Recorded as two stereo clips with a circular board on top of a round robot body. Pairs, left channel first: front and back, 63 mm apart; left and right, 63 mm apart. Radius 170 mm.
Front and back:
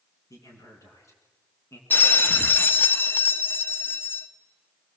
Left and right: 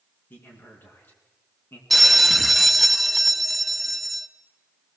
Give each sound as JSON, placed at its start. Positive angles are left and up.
{"t": 0.3, "sound": "a man speaking", "azimuth_deg": 35, "distance_m": 6.0}
{"t": 1.9, "sound": "a bell", "azimuth_deg": 0, "distance_m": 1.5}